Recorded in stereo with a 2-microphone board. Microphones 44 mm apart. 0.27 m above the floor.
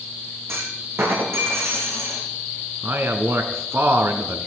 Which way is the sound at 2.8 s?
65° right (ahead or behind).